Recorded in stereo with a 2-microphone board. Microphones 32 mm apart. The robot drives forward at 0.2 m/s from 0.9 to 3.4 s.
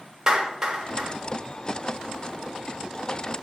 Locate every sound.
0.3 s a clap: 25° right (ahead or behind), 1.0 m; by 1.1 s 20° right (ahead or behind), 1.0 m